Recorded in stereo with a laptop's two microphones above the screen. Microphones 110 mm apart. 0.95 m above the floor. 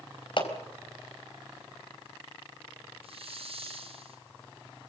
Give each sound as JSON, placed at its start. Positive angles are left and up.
{"t": 0.4, "sound": "a clap", "side_deg": 50, "distance_m": 4.0}
{"t": 3.0, "sound": "a hiss", "side_deg": -65, "distance_m": 3.5}